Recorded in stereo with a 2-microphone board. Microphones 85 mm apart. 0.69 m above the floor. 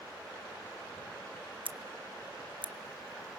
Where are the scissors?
80° right, 0.6 m.